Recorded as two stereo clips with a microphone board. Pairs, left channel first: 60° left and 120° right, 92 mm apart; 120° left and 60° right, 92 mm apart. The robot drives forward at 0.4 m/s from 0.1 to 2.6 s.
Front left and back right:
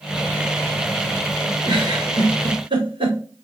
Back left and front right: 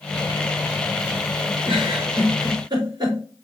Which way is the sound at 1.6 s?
90° right.